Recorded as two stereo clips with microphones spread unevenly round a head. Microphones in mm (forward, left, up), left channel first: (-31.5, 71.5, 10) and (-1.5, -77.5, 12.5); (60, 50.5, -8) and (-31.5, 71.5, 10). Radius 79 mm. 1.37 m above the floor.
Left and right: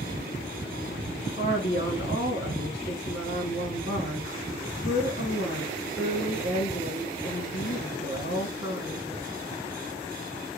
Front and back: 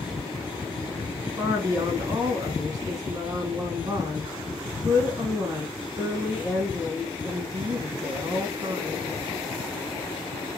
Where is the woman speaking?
130° left, 1.7 m.